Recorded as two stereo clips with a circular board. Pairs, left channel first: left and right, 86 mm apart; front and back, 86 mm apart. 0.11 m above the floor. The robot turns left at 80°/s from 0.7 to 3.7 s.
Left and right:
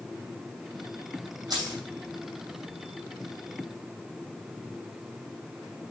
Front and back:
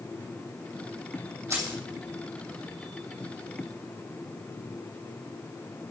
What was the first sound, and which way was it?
Keys jangling, 120° right.